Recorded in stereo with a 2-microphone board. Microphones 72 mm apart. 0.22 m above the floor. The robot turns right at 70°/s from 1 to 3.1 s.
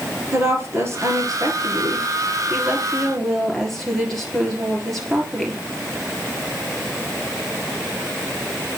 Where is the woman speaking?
145° right, 3.5 m; by 5.6 s 5° left, 3.5 m.